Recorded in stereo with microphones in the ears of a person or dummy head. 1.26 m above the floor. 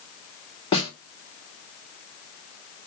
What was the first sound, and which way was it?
A snare drum, 30° left (ahead or behind).